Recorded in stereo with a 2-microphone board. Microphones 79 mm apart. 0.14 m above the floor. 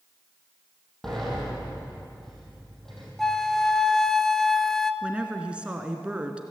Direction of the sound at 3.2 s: 5° left (ahead or behind).